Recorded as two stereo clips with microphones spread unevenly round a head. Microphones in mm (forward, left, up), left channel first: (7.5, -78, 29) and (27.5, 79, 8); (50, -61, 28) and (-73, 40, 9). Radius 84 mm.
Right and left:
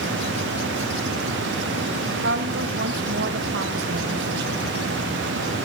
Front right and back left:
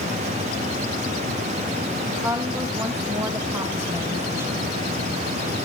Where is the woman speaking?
65° left, 2.5 m.